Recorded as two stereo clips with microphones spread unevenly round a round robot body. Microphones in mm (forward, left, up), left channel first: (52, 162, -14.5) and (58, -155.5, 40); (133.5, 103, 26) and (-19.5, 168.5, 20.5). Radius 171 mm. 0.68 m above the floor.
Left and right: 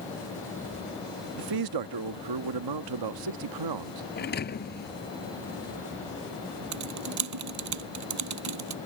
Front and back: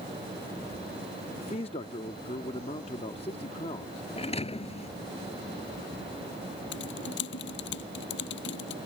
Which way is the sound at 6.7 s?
55° right.